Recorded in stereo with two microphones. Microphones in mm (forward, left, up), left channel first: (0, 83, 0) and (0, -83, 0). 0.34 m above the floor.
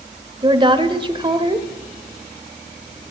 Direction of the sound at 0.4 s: 30° right (ahead or behind).